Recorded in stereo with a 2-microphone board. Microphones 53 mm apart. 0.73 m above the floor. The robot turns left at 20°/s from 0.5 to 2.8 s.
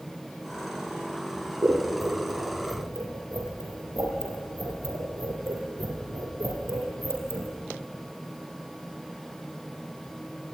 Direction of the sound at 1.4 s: 40° right (ahead or behind).